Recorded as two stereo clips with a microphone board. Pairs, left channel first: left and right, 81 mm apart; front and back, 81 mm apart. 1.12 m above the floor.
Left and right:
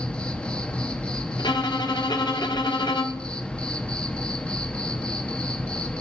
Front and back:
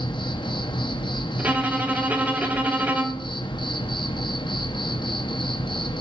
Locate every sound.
0.0 s an insect: 15° left, 0.9 m
1.4 s a violin: 115° left, 1.2 m